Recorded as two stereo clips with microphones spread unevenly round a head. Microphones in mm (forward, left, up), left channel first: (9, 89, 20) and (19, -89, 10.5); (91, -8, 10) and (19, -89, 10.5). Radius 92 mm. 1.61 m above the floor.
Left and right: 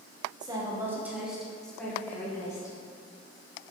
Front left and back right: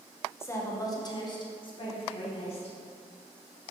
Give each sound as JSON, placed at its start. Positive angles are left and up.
{"t": 0.4, "sound": "a woman speaking", "azimuth_deg": -20, "distance_m": 1.7}